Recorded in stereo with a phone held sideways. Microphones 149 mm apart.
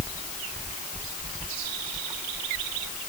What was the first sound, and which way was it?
Only background noise.